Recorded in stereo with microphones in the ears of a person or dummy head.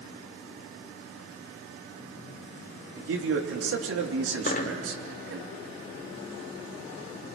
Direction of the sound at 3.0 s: 80° right.